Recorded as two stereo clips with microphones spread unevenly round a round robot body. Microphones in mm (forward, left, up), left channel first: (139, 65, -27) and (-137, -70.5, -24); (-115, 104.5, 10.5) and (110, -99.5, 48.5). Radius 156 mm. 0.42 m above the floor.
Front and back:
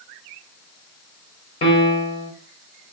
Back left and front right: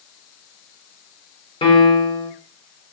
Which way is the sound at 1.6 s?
80° left.